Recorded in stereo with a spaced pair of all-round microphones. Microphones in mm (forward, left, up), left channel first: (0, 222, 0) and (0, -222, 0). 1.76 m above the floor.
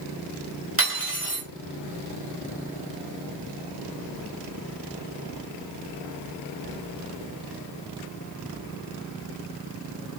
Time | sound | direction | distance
0.8 | cutlery clinking | 30° right (ahead or behind) | 5 m